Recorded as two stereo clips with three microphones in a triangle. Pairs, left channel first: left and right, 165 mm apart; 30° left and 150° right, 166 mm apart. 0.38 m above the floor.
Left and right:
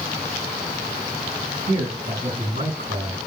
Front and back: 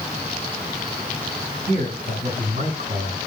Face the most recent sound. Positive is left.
turn(degrees=-115)